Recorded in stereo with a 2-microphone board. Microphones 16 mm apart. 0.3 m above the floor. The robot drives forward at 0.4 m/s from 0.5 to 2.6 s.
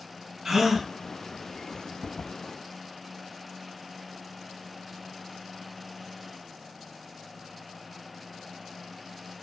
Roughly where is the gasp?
Right.